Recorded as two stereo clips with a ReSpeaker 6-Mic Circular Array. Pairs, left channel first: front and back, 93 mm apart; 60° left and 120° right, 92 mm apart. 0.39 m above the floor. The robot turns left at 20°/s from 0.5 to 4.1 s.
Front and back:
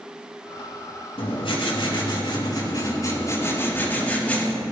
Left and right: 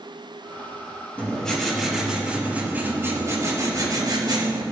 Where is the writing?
15° right, 5.5 m; by 4.6 s 75° right, 5.5 m.